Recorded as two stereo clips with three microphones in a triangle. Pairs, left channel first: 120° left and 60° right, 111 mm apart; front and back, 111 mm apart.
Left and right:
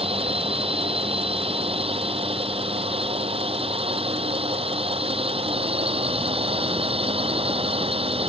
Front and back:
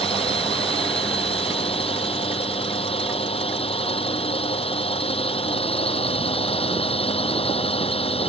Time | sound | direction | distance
0.0 | a drone | 30° right | ?